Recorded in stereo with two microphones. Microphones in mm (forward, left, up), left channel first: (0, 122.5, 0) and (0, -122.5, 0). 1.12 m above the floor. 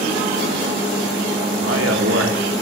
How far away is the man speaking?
About 2.5 m.